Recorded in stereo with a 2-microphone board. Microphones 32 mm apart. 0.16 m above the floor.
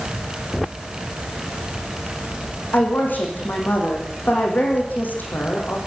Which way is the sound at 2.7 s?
75° left (ahead or behind).